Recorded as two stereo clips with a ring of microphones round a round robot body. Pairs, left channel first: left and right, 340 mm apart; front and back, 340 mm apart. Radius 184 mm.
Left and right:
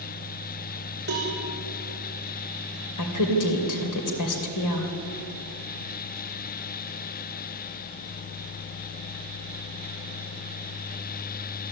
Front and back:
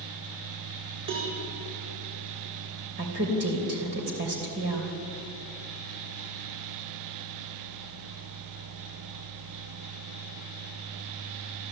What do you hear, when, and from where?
1.1 s a cowbell: 150° right, 8 m
3.0 s a woman speaking: 120° left, 2.5 m